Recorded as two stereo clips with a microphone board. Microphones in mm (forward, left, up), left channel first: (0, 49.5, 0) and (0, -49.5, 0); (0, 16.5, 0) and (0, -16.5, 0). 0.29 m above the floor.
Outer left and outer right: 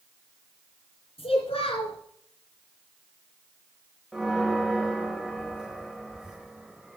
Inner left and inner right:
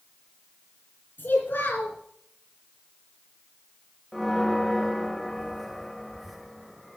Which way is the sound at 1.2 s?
75° left (ahead or behind).